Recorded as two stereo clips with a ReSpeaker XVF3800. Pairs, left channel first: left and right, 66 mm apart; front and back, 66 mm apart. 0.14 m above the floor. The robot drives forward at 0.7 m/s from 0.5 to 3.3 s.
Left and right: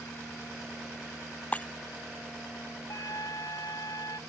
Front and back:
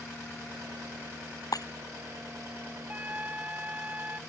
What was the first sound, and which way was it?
Breaking glass, 20° left.